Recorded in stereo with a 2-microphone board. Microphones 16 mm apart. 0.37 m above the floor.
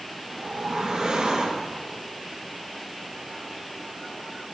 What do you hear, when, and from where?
0.3 s a whoosh: 65° right (ahead or behind), 6.5 m